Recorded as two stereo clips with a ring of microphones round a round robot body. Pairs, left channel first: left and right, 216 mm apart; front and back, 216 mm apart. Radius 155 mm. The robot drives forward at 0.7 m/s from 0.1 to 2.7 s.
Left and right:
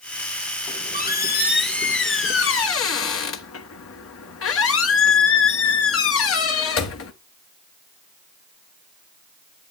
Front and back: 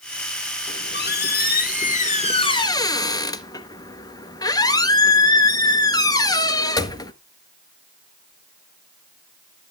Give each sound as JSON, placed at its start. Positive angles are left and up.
{"t": 0.7, "sound": "a squeak", "azimuth_deg": 40, "distance_m": 2.5}